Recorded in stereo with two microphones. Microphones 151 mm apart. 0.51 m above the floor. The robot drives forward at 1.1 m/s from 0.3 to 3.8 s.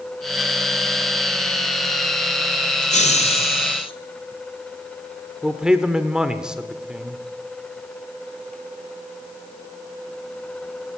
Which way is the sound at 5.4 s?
5° right (ahead or behind).